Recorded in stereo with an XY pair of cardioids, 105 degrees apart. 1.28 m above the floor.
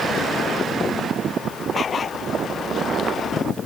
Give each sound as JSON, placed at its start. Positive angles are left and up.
{"t": 1.7, "sound": "a dog barking", "azimuth_deg": 40}